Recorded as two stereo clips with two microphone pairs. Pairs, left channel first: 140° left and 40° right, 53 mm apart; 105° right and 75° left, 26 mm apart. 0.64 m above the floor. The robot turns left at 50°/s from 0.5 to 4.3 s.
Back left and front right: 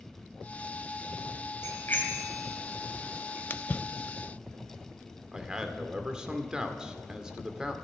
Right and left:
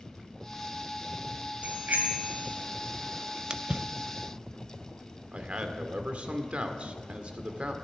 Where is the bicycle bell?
105° left, 2.5 m; by 3.4 s 15° left, 2.5 m.